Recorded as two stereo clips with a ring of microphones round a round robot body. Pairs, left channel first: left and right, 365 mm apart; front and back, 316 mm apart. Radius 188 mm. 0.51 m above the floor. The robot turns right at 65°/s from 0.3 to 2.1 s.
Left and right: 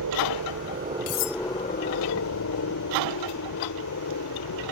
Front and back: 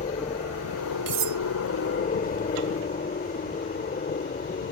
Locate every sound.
0.0 s a helicopter: 65° right; by 4.7 s 55° left
1.1 s cutlery clinking: 140° left; by 1.4 s 160° left